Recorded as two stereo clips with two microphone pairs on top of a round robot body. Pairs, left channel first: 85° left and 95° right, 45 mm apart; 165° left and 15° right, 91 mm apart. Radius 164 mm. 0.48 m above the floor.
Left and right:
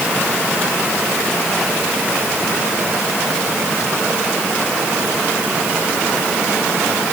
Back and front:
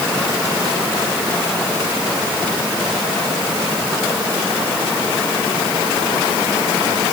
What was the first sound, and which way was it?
Only background noise.